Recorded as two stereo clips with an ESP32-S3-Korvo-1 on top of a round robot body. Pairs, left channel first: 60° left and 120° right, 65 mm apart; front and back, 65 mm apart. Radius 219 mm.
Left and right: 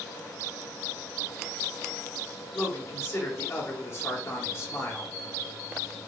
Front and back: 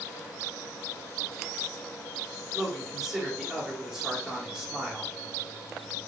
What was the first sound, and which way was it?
A man speaking, 95° left.